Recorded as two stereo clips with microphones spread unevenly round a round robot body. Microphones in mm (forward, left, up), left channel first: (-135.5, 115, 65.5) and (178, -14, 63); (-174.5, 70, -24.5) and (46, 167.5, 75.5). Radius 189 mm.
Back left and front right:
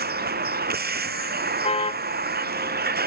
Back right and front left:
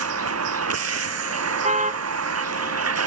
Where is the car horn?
85° left.